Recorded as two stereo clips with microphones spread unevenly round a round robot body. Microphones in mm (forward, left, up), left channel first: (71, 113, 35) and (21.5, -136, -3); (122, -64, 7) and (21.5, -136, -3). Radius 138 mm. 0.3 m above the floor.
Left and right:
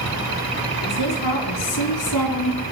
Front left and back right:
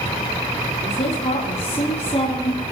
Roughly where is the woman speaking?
Left.